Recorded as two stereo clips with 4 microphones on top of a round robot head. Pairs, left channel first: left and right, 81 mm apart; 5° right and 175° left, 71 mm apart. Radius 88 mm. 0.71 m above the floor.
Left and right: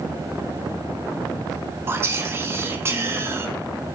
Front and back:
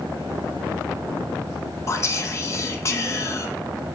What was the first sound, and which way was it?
Whispering, 40° right.